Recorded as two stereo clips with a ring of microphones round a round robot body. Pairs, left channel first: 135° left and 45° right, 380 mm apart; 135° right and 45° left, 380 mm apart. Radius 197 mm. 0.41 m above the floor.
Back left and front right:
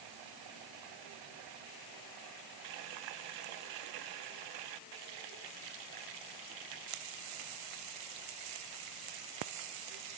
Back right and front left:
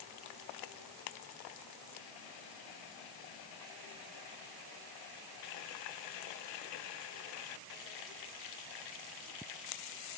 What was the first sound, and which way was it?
Only background noise.